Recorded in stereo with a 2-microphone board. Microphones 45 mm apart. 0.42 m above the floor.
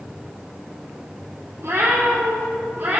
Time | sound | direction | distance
1.6 | a cat meowing | 75° right (ahead or behind) | 3.5 m